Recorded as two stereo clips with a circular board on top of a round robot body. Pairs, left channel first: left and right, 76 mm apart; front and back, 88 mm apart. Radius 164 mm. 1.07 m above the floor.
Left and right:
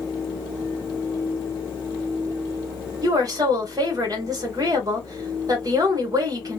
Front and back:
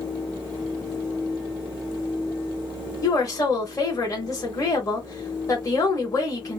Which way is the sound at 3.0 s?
50° right.